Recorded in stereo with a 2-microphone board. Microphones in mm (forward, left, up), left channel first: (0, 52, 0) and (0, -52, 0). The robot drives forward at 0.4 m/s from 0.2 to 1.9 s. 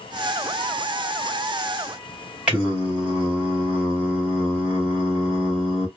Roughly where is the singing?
Centre.